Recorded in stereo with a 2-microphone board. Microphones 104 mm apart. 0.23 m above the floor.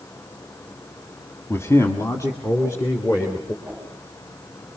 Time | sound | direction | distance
1.5 | a man speaking | 25° left (ahead or behind) | 1.3 m
3.6 | a whoosh | 10° right (ahead or behind) | 9 m